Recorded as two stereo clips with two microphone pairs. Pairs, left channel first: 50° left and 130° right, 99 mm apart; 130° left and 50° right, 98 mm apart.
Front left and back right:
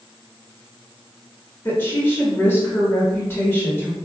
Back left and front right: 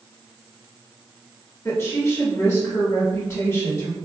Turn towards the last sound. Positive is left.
turn(degrees=95)